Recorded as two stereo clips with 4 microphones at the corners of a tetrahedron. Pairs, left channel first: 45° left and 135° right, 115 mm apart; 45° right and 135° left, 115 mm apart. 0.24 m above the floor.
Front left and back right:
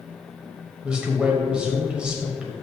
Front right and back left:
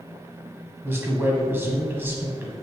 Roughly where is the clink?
I don't hear a clink.